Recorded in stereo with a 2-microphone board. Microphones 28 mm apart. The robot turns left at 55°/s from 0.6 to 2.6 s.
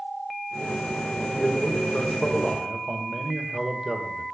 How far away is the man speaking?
About 1.7 m.